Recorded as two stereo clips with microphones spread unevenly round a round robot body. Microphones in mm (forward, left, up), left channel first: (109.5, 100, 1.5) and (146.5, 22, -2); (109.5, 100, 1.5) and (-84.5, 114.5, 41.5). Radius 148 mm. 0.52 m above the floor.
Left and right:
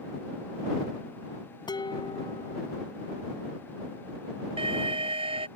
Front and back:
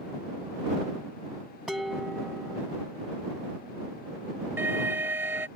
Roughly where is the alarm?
Right.